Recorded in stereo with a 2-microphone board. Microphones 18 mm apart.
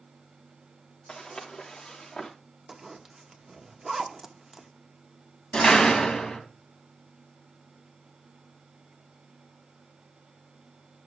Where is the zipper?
25° right (ahead or behind), 1.1 m.